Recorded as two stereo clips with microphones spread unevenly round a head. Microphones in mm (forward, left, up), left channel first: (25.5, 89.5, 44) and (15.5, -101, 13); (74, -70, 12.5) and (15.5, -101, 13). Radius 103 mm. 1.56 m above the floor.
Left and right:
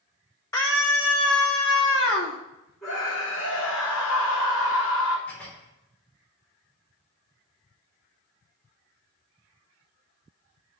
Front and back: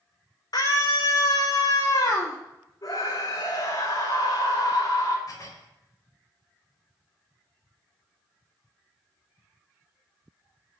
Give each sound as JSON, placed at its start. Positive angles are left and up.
{"t": 0.5, "sound": "a scream", "azimuth_deg": 15, "distance_m": 6.0}
{"t": 2.8, "sound": "a scream", "azimuth_deg": 10, "distance_m": 4.5}
{"t": 5.3, "sound": "dishes clattering", "azimuth_deg": 5, "distance_m": 4.0}